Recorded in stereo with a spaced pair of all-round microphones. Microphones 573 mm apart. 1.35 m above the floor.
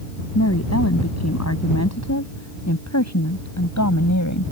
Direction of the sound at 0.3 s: 25° left (ahead or behind).